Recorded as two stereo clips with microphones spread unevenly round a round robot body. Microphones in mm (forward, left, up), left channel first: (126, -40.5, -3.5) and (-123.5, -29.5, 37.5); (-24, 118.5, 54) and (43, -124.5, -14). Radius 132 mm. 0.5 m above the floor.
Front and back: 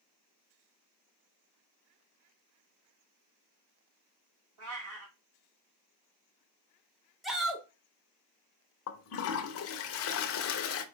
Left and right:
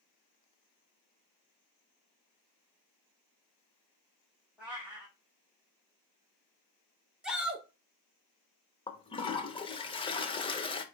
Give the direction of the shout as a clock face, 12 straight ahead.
2 o'clock.